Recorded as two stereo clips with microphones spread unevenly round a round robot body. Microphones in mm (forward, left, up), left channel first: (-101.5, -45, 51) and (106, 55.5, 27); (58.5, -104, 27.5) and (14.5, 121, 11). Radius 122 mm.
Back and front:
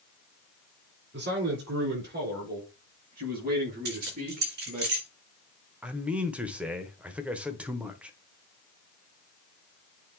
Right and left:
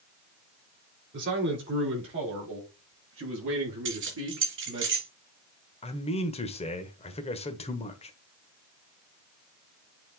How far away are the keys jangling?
About 3.5 m.